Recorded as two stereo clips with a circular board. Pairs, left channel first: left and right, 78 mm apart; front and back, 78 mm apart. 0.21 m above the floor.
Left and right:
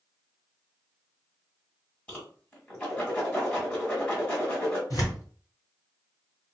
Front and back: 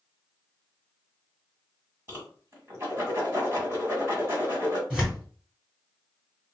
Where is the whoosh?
150° left, 2.0 m.